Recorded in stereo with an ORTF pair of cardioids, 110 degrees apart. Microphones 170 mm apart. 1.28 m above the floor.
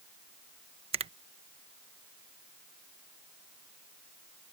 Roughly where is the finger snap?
Ahead right.